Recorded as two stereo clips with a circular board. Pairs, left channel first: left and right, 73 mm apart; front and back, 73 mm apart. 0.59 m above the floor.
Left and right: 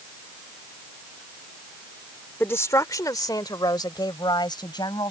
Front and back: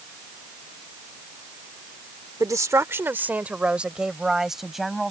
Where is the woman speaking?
145° left; by 5.1 s 90° left.